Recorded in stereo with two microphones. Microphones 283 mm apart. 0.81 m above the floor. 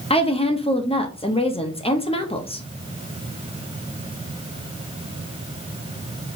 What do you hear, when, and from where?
0.1 s a woman speaking: 20° left (ahead or behind), 0.6 m